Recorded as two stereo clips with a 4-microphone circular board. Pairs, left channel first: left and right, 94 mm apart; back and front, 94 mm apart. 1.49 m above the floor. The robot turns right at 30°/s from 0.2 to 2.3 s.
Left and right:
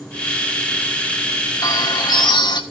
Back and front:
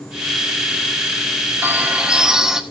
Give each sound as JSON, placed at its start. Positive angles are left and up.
{"t": 1.6, "sound": "a bird", "azimuth_deg": 60, "distance_m": 1.3}